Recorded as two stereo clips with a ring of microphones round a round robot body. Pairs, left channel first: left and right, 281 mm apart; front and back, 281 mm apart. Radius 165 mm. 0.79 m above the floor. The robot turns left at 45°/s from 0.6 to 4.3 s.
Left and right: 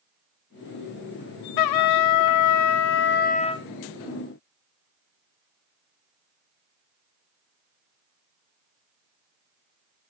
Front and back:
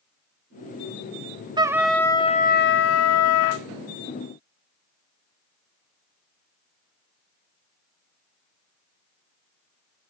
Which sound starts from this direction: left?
A trumpet, at 1.6 s.